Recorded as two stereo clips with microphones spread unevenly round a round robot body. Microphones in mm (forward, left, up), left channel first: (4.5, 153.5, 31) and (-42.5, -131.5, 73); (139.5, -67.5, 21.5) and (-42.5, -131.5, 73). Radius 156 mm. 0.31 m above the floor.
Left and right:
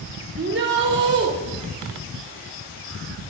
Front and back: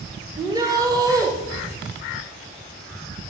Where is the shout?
80° right, 1.7 m.